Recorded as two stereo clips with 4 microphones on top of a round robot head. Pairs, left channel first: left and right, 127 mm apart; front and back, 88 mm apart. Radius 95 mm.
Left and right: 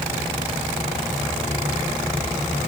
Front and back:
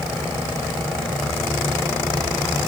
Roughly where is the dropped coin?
No dropped coin in this recording.